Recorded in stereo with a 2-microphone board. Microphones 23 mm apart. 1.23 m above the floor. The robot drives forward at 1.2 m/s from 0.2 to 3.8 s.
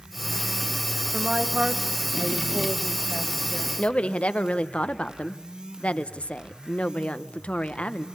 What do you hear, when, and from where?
1.1 s a woman speaking: 55° right (ahead or behind), 1.3 m; by 3.7 s 25° right (ahead or behind), 2.5 m
3.8 s a woman speaking: 60° left (ahead or behind), 1.1 m